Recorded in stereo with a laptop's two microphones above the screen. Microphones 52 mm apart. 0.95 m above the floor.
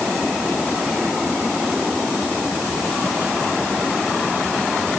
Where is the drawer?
No drawer in this recording.